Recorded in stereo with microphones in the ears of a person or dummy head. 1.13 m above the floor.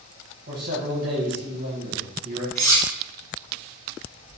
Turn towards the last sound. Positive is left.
turn(degrees=15)  # may be behind; listen again after turning